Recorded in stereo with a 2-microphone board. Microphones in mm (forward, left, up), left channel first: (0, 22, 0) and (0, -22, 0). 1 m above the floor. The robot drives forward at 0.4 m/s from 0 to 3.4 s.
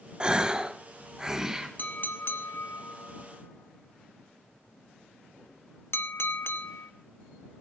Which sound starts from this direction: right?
A gasp, at 0.2 s.